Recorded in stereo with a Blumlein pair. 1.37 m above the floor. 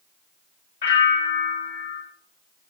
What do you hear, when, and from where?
0.8 s a bell: 60° left, 3.5 m